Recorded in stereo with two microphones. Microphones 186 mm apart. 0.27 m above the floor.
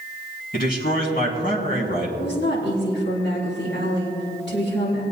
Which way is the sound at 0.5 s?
55° left (ahead or behind).